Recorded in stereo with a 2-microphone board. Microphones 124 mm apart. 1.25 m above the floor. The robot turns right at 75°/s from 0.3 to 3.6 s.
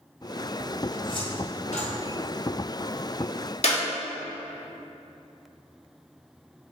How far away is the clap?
About 1.8 m.